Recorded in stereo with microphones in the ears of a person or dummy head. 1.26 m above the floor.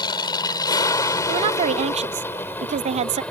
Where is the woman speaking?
35° right (ahead or behind).